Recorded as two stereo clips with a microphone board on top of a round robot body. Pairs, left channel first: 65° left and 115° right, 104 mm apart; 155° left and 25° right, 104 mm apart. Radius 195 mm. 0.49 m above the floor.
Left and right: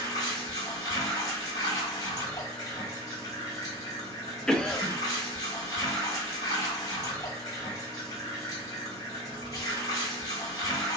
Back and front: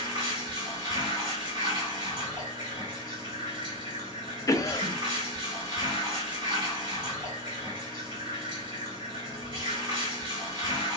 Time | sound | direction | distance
0.0 | running water | 15° left | 1.8 m
4.5 | a cough | 145° left | 0.8 m